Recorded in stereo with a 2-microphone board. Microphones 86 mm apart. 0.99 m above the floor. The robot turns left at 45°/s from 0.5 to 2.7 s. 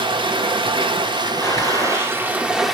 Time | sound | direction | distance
0.0 | running water | 75° right | 1.1 m
1.4 | a gunshot | 145° left | 3 m